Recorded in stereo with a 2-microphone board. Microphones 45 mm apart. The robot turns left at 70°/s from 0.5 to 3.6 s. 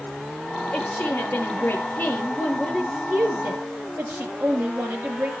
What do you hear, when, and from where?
0.7 s a woman speaking: 125° left, 6.5 m; by 5.3 s 75° right, 6.5 m